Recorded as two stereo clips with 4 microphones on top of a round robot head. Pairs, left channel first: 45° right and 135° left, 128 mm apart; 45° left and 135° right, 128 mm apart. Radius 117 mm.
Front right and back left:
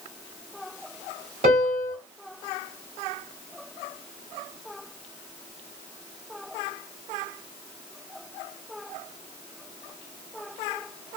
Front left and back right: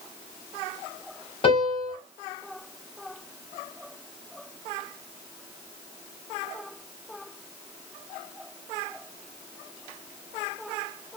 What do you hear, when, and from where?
1.4 s a piano: 95° left, 1.7 m